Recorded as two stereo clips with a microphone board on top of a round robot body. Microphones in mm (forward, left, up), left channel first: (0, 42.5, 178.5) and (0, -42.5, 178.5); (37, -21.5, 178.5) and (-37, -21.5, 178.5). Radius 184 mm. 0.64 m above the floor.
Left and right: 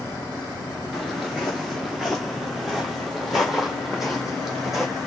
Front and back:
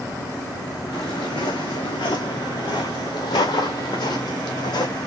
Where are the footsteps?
5° right, 0.6 m.